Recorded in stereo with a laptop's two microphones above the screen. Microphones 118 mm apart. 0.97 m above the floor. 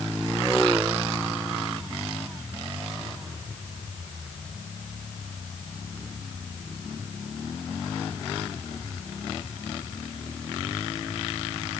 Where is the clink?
No clink in this recording.